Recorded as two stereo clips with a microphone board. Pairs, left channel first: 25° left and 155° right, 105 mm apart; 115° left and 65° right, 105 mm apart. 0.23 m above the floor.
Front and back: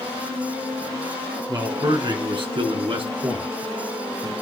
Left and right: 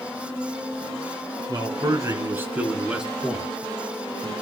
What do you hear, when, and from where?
1.5 s a man speaking: 110° right, 2 m; by 4.3 s straight behind, 3 m